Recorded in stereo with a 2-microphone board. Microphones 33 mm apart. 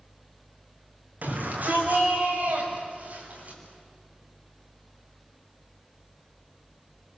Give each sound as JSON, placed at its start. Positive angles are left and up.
{"t": 1.2, "sound": "a shout", "side_deg": -60, "distance_m": 6.5}